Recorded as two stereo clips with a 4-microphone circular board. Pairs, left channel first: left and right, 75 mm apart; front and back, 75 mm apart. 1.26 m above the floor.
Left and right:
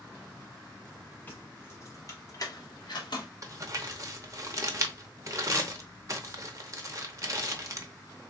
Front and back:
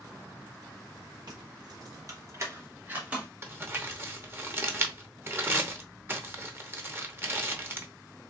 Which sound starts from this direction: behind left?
Keys jangling, at 1.3 s.